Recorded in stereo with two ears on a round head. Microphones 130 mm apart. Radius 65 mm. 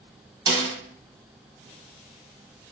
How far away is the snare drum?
About 1.3 m.